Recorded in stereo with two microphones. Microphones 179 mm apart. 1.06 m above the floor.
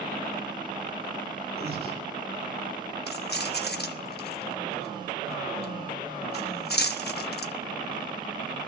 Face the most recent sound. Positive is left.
turn(degrees=65)  # may be behind; listen again after turning